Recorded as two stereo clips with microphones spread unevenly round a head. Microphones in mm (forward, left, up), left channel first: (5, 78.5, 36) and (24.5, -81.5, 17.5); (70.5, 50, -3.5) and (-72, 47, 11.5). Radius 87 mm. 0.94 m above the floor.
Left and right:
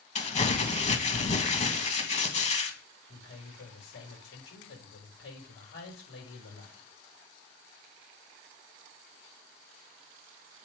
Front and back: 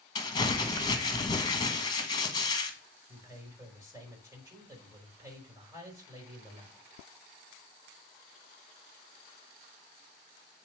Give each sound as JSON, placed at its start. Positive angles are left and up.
{"t": 0.1, "sound": "crumpling", "azimuth_deg": 50, "distance_m": 1.6}
{"t": 3.1, "sound": "a man speaking", "azimuth_deg": 110, "distance_m": 5.0}